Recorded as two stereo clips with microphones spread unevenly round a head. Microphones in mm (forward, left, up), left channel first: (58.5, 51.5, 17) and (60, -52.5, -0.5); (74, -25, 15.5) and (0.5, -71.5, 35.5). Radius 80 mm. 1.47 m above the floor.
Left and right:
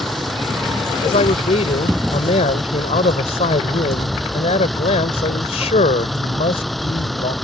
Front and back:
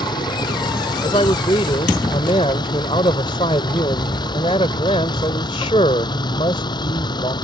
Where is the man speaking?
90° left.